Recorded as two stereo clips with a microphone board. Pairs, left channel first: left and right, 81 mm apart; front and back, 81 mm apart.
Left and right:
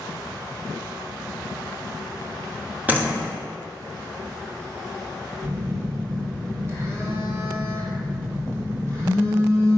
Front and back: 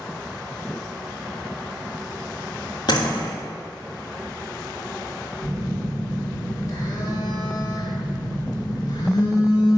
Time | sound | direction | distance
2.9 | a door slam | 20° right | 1.9 m
5.4 | a phone buzzing | 40° right | 2 m